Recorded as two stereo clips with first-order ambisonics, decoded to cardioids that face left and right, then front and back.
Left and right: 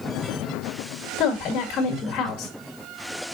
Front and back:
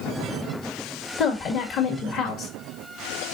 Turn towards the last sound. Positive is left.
turn(degrees=45)